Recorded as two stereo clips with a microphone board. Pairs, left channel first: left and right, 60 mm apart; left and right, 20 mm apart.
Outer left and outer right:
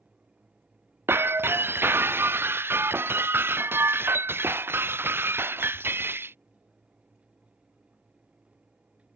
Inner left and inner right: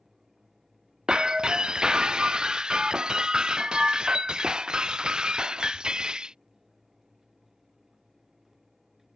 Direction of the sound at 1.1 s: 40° right (ahead or behind).